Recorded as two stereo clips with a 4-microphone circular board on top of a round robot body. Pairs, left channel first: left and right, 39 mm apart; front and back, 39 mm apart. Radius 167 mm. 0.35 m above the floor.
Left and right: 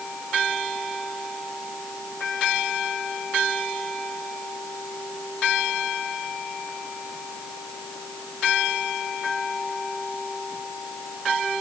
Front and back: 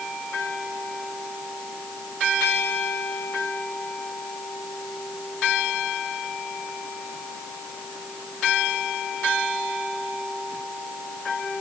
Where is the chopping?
No chopping in this recording.